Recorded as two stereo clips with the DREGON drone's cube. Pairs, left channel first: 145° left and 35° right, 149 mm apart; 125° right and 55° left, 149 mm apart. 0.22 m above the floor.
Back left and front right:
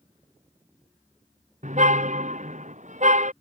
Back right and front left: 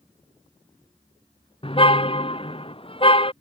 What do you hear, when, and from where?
1.6 s a car horn: 70° right